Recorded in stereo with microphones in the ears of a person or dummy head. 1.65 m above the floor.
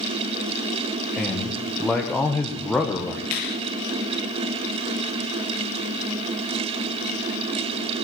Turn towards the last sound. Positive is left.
turn(degrees=40)  # may be behind; listen again after turning